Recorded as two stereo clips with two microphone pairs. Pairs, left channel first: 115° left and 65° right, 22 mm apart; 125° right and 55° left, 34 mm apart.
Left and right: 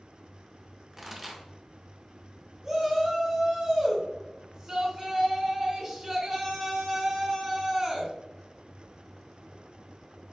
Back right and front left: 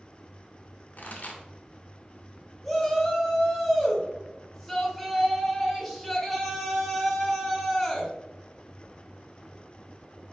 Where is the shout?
40° right, 1.1 m.